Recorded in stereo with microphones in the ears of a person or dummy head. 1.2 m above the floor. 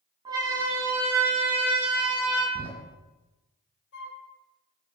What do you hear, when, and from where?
0.2 s a siren: 25° right (ahead or behind), 8.5 m; by 2.5 s 10° right (ahead or behind), 10 m
2.5 s a door slam: 35° right (ahead or behind), 5.5 m
3.9 s a flute: 70° left (ahead or behind), 5.5 m